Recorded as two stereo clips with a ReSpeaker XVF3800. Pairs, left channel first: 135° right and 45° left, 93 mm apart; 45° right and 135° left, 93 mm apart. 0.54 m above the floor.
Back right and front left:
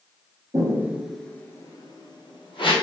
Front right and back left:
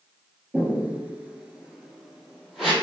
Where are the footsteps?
70° left, 0.6 m; by 2.7 s 135° right, 1.1 m.